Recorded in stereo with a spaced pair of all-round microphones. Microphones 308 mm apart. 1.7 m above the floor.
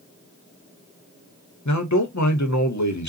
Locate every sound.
1.6 s a man speaking: 65° left (ahead or behind), 1.2 m